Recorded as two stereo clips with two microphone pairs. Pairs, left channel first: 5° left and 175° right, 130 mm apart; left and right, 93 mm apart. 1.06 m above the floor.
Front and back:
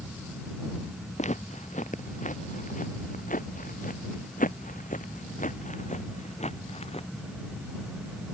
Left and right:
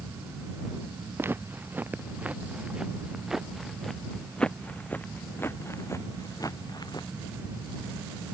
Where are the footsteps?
25° right; by 7.1 s 45° left.